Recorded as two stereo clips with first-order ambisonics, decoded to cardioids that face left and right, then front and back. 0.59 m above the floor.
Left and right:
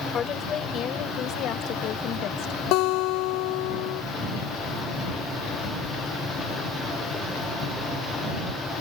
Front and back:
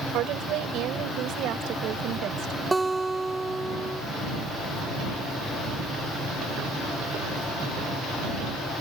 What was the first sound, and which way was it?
A woman speaking, 145° left.